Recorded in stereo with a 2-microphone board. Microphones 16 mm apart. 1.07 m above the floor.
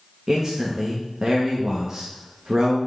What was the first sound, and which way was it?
A man speaking, 35° right (ahead or behind).